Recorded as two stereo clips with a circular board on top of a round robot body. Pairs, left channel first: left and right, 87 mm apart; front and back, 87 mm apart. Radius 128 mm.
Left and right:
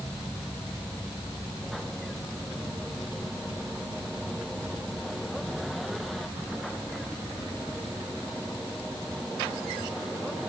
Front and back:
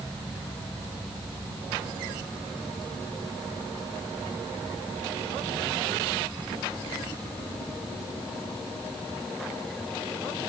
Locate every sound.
Only background noise.